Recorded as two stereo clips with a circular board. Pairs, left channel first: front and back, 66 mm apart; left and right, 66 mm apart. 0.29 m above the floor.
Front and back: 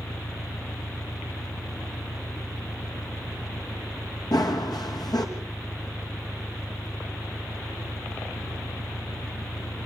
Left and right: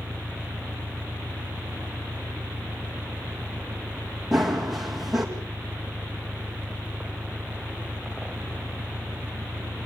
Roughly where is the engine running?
Ahead right.